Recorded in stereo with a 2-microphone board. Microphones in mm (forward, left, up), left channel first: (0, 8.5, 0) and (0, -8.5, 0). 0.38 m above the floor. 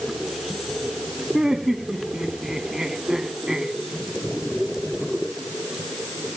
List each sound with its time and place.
1.3 s laughter: 40° right (ahead or behind), 3 m